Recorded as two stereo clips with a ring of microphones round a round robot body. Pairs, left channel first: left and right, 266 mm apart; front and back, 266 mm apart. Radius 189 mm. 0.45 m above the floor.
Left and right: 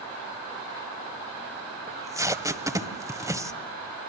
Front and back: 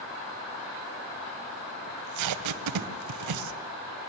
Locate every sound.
1.9 s tape being pulled: 170° right, 1.6 m